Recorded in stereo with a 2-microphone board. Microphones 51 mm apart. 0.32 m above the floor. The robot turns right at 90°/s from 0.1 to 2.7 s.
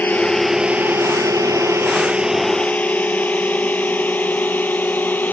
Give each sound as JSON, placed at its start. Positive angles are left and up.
{"t": 0.0, "sound": "a drone", "side_deg": 35}